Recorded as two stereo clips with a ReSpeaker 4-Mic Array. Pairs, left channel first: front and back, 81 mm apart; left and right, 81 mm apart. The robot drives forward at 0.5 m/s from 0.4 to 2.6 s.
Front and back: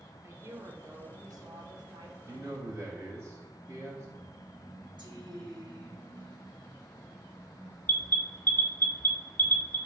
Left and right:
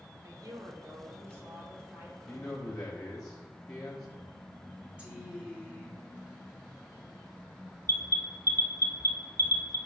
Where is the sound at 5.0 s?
165° right, 1.9 m.